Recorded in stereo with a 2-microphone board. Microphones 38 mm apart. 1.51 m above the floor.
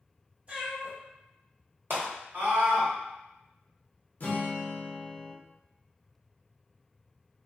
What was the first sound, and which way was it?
A cat meowing, 30° right (ahead or behind).